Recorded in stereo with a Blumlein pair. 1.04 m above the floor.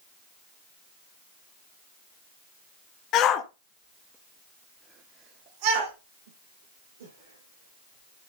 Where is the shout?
35° left, 1.6 m; by 8.3 s 75° right, 3.5 m.